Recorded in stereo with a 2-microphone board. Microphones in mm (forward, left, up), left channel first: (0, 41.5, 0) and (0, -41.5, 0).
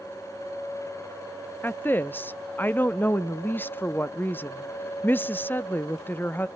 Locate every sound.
1.6 s a woman speaking: 25° left (ahead or behind), 0.6 m